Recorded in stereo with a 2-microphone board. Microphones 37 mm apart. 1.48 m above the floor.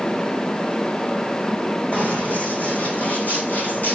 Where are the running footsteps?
40° left (ahead or behind), 5.5 m; by 4.0 s 55° left (ahead or behind), 5 m.